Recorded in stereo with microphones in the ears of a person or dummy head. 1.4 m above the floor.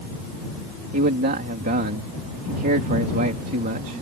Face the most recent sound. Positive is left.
turn(degrees=-45)  # may be behind; listen again after turning